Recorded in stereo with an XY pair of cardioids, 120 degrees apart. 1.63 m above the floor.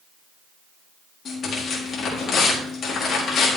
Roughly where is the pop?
I don't hear a pop.